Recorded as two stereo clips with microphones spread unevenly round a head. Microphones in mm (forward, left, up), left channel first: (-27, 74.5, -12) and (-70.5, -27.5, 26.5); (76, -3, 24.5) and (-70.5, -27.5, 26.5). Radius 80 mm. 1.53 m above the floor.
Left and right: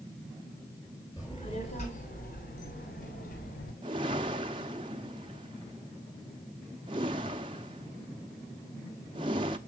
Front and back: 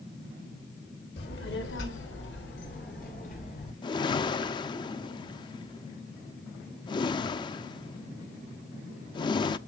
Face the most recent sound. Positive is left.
turn(degrees=-50)